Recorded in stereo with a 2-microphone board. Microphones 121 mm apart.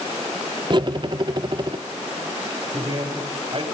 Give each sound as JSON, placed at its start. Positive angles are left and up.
{"t": 0.7, "sound": "cutlery clinking", "side_deg": -40, "distance_m": 0.8}
{"t": 2.7, "sound": "a man speaking", "side_deg": -50, "distance_m": 5.5}